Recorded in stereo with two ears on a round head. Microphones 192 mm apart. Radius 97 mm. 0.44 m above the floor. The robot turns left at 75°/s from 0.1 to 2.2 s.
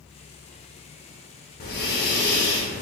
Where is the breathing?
115° left, 0.8 m; by 2.8 s 70° left, 0.8 m.